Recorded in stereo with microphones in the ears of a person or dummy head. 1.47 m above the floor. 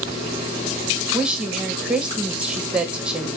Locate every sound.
1.1 s a woman speaking: 5° right (ahead or behind), 1.5 m